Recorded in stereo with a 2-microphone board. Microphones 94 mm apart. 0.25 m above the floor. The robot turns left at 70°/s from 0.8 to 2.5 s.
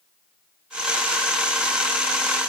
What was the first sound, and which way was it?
Only background noise.